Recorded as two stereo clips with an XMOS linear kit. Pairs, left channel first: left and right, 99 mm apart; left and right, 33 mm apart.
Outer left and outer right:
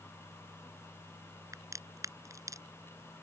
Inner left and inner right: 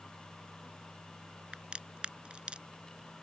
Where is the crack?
35° right (ahead or behind).